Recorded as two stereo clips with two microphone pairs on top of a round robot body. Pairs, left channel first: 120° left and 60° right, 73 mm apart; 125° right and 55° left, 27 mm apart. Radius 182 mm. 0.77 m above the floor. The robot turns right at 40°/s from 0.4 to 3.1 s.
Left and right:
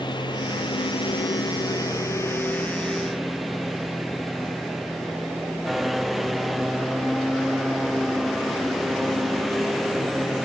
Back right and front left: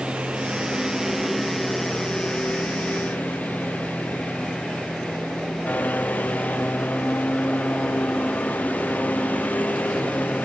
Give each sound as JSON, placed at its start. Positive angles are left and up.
{"t": 0.0, "sound": "a lawn mower", "azimuth_deg": 100}